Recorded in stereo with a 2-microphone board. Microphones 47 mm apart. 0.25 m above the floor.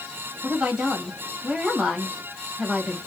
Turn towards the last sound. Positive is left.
turn(degrees=-20)  # may be behind; listen again after turning